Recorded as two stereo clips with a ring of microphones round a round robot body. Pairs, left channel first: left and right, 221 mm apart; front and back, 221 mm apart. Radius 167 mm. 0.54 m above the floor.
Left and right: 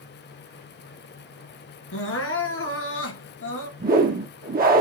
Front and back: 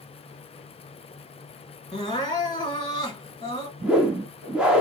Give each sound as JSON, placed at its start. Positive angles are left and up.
{"t": 1.9, "sound": "crying", "azimuth_deg": 70, "distance_m": 2.0}
{"t": 3.8, "sound": "a whoosh", "azimuth_deg": -95, "distance_m": 0.9}